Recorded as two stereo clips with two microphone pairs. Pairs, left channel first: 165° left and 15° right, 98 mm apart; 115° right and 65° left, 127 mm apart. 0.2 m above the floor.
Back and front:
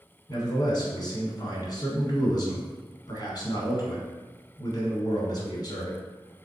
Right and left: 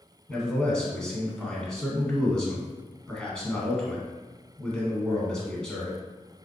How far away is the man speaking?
About 1.6 m.